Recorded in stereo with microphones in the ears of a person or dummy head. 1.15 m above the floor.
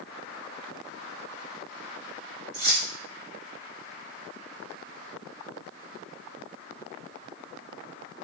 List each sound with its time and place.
2.5 s keys jangling: 70° right (ahead or behind), 1.7 m